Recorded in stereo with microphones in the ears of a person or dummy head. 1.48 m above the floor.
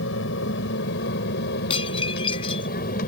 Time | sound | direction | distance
0.0 | an aircraft | 75° left (ahead or behind) | ?
1.7 | dishes clattering | 35° left (ahead or behind) | ?